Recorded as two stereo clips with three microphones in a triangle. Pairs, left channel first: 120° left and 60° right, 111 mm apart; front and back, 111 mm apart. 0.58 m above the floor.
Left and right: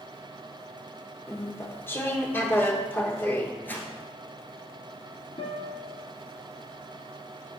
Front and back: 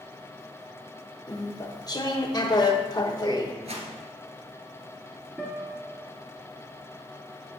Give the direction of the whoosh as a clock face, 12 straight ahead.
6 o'clock.